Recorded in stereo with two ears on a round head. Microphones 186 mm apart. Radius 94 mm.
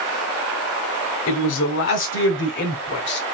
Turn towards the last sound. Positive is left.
turn(degrees=50)  # may be behind; listen again after turning